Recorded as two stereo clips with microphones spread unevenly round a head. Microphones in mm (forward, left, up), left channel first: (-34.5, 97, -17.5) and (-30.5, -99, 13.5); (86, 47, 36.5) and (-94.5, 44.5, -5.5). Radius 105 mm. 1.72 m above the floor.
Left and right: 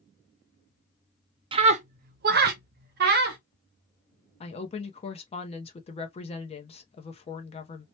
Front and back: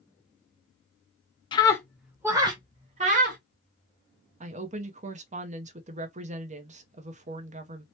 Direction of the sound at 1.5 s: 40° right.